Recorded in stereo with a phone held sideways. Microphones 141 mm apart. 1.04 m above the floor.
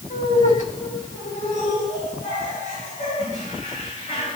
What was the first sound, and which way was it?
Laughter, 70° left (ahead or behind).